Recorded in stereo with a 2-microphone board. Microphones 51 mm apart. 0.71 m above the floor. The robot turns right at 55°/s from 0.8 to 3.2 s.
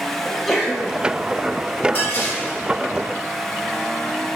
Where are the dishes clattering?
50° left, 1.4 m; by 2.6 s 80° left, 1.4 m.